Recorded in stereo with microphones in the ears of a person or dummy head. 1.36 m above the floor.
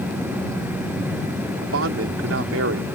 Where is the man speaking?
90° right.